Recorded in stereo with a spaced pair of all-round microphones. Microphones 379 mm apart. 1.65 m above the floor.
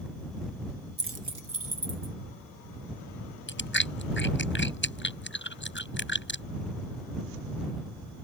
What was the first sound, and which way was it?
Keys jangling, 25° right (ahead or behind).